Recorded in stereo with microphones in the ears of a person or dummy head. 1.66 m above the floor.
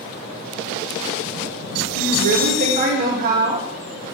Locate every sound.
1.9 s a woman speaking: 50° right (ahead or behind), 2.5 m